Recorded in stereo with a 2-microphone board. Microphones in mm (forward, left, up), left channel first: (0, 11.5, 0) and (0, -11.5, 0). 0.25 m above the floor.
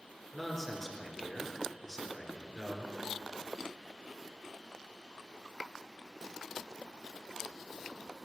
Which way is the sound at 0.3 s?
10° left (ahead or behind).